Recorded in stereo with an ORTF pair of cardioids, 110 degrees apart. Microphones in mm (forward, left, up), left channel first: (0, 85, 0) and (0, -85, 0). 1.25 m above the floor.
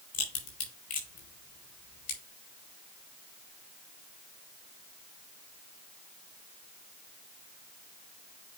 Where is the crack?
60° left, 5.5 m.